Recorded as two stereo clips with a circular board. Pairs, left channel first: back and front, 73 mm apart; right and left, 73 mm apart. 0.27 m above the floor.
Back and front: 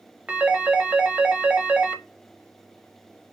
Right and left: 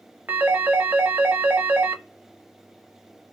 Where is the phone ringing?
55° left, 0.5 m.